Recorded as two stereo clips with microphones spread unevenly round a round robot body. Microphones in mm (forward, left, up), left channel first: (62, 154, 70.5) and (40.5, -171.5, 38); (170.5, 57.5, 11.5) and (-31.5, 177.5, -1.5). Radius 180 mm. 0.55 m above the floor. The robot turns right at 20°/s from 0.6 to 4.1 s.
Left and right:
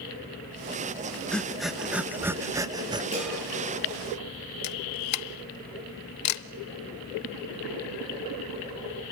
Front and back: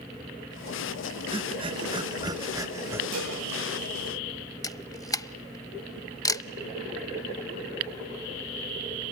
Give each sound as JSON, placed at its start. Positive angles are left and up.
{"t": 1.3, "sound": "breathing", "azimuth_deg": 180, "distance_m": 0.9}
{"t": 3.1, "sound": "dishes clattering", "azimuth_deg": -170, "distance_m": 9.0}
{"t": 4.6, "sound": "a camera shutter", "azimuth_deg": 45, "distance_m": 0.8}